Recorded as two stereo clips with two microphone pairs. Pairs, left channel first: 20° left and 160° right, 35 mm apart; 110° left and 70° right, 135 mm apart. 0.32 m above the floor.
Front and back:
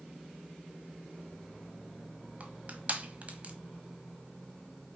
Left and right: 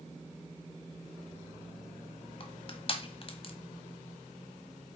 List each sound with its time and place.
2.4 s crushing: 155° left, 1.2 m